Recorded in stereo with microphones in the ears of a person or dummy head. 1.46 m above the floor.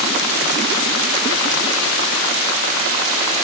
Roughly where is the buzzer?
I don't hear a buzzer.